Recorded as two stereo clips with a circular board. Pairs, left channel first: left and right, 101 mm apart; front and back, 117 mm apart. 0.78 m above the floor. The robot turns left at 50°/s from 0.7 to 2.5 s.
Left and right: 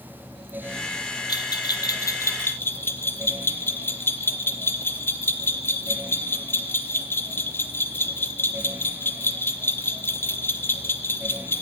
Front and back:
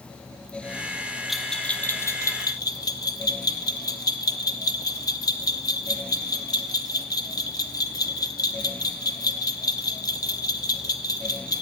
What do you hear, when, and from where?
1.3 s a bell: 95° left, 0.5 m; by 11.6 s 35° left, 0.5 m